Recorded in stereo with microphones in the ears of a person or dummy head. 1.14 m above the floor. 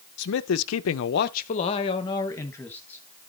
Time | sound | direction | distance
0.2 | a man speaking | 65° left (ahead or behind) | 0.6 m